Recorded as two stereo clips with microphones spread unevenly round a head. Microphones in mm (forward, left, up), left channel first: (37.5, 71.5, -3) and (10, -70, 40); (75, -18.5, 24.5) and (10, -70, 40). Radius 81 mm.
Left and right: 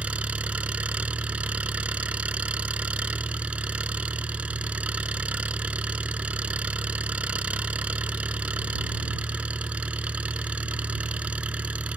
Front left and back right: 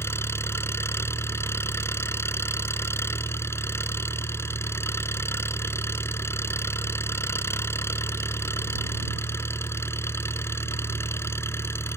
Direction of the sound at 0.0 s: 25° right.